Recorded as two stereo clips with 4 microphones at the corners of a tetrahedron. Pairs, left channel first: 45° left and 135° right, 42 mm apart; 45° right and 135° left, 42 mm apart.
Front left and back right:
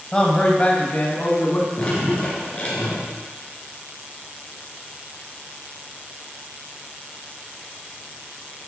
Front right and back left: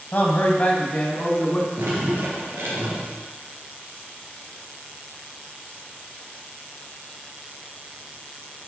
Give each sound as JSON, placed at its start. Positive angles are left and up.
{"t": 0.1, "sound": "a man speaking", "azimuth_deg": -20, "distance_m": 1.3}
{"t": 1.8, "sound": "dripping", "azimuth_deg": 105, "distance_m": 2.5}